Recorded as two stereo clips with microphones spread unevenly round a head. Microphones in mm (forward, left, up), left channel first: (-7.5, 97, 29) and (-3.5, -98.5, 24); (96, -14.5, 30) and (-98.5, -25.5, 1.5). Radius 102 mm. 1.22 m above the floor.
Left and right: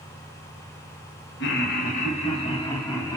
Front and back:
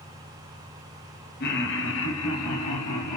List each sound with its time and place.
1.4 s laughter: 50° left, 0.9 m; by 3.2 s 15° left, 1.5 m